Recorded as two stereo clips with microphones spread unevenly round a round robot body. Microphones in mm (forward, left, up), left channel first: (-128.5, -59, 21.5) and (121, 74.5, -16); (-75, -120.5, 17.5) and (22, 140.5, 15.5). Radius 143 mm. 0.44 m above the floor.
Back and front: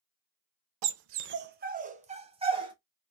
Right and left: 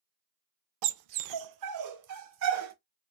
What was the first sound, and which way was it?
A dog barking, 50° left.